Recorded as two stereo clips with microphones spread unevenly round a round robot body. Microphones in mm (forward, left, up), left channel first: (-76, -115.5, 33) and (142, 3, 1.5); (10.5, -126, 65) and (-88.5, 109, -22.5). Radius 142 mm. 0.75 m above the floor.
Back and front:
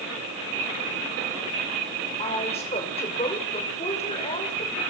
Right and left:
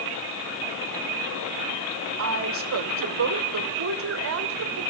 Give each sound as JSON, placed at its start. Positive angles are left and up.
{"t": 2.2, "sound": "a woman speaking", "azimuth_deg": 135, "distance_m": 2.5}